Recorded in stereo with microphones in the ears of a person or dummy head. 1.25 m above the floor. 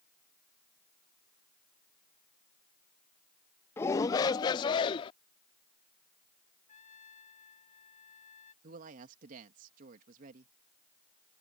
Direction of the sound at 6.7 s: 50° left (ahead or behind).